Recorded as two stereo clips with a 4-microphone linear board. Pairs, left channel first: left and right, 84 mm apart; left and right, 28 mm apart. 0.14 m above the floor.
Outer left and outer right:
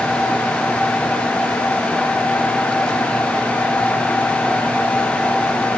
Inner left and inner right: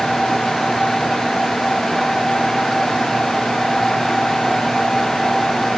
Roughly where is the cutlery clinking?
No cutlery clinking in this recording.